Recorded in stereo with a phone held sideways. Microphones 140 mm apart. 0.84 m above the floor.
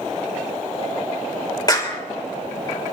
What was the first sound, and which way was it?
A clap, 30° left (ahead or behind).